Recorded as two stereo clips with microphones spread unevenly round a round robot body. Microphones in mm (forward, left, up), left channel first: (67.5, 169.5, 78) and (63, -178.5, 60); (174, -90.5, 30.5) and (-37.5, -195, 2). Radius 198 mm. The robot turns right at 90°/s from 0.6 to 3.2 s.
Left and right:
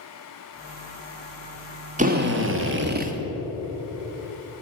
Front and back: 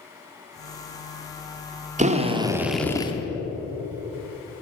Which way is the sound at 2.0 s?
140° right.